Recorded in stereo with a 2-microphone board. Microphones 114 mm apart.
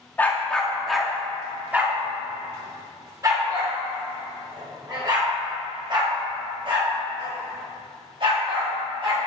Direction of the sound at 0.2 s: 15° left (ahead or behind).